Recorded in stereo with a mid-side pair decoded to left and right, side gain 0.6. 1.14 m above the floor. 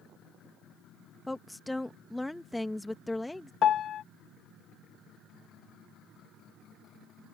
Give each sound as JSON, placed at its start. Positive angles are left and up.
{"t": 1.3, "sound": "a woman speaking", "azimuth_deg": 5}
{"t": 3.6, "sound": "a piano", "azimuth_deg": 50}